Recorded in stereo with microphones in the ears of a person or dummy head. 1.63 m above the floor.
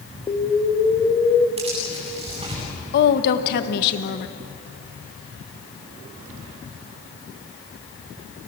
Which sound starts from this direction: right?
Tearing paper, at 1.6 s.